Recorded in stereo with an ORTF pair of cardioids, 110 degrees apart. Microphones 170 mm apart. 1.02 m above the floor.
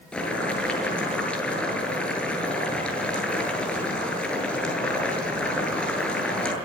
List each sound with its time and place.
0.1 s boiling: 5° left, 8.5 m